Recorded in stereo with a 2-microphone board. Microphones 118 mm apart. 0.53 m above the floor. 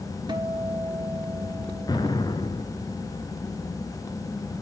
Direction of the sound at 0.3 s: 40° right (ahead or behind).